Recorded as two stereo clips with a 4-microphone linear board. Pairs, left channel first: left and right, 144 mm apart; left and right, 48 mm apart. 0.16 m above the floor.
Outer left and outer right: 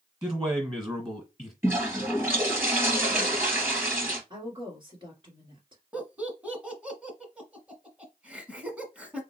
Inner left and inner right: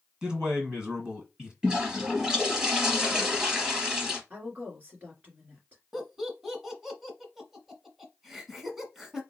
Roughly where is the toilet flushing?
Centre.